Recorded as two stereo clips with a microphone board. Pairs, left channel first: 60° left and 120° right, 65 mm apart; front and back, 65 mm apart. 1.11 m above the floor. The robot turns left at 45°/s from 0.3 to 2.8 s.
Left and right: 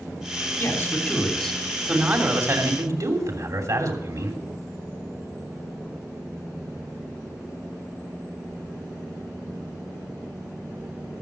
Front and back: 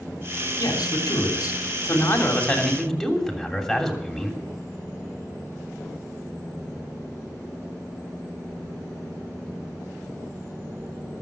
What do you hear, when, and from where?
0.6 s a man speaking: 10° left, 3 m; by 4.4 s 90° right, 3 m